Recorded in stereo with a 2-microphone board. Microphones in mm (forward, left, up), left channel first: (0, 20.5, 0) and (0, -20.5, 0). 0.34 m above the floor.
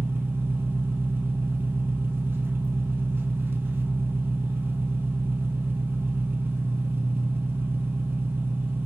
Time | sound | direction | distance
0.0 | an engine running | 65° right (ahead or behind) | 0.8 m